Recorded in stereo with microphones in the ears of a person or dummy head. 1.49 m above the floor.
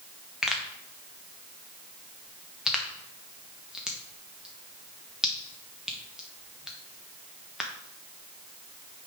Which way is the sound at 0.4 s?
Centre (ahead or behind).